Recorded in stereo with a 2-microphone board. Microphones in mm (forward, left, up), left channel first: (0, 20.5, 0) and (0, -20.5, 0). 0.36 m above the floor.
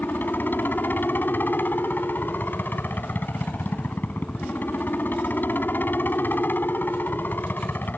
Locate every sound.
0.0 s a helicopter: 50° left (ahead or behind)